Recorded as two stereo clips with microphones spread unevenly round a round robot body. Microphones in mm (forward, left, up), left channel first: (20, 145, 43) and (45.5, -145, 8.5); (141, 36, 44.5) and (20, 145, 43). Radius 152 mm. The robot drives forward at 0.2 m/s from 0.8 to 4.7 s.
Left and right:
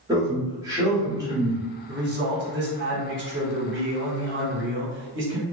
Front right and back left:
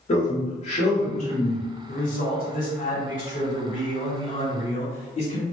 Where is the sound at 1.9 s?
45° right, 1.3 m; by 5.4 s 75° right, 1.1 m.